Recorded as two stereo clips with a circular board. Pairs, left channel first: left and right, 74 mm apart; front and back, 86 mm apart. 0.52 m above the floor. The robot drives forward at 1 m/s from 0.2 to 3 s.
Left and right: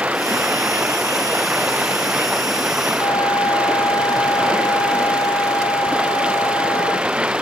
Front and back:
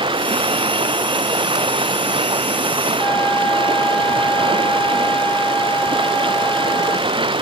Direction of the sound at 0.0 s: 165° right.